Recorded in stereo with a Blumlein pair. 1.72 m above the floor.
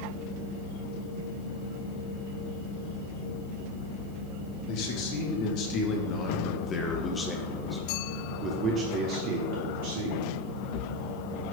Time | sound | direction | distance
4.7 | a man speaking | 45° left | 2 m